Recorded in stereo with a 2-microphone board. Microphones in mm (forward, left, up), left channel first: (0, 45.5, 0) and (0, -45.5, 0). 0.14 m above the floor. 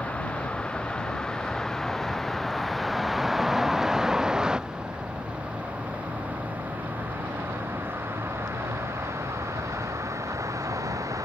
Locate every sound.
0.0 s a vehicle: 15° left (ahead or behind); by 11.3 s 35° right (ahead or behind)